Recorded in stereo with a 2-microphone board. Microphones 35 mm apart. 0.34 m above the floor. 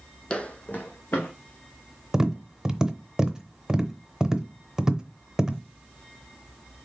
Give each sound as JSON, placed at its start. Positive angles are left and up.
{"t": 0.3, "sound": "footsteps", "side_deg": 25, "distance_m": 0.7}
{"t": 2.1, "sound": "tapping", "side_deg": -15, "distance_m": 0.7}